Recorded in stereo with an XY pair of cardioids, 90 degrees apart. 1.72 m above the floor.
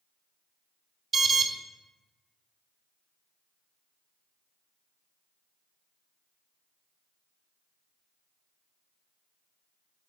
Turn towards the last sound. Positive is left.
turn(degrees=-45)